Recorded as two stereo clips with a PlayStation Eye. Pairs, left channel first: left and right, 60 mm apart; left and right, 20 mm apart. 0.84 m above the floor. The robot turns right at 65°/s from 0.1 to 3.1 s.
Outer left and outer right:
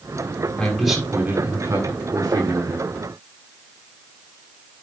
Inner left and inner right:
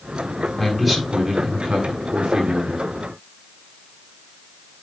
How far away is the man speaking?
About 7.5 m.